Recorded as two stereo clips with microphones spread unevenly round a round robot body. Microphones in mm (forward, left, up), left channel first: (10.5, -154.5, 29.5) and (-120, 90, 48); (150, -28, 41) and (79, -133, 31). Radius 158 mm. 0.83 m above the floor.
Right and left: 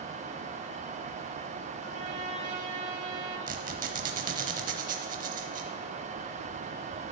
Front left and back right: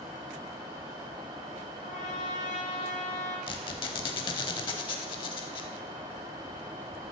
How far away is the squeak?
About 0.7 m.